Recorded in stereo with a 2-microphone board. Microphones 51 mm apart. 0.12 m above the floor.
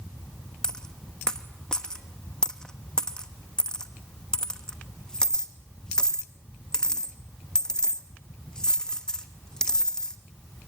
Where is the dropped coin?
15° left (ahead or behind), 1.0 m.